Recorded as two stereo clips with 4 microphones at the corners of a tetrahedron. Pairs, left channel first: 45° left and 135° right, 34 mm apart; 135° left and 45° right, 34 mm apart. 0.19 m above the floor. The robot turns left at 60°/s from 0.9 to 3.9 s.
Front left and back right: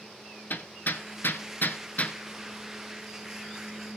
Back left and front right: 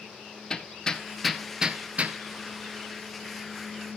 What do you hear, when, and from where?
0.5 s hammering: 65° left, 0.9 m; by 2.2 s 10° right, 0.9 m